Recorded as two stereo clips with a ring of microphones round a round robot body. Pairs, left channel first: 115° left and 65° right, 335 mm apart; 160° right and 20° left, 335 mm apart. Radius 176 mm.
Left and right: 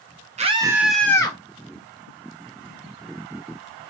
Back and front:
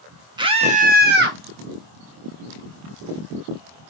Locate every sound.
0.4 s a scream: 35° right, 0.7 m; by 1.4 s 45° left, 0.8 m